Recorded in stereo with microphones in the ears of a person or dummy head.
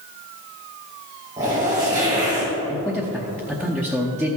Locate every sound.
1.4 s a zipper: 15° right (ahead or behind), 3.5 m
2.7 s a man speaking: centre (ahead or behind), 0.8 m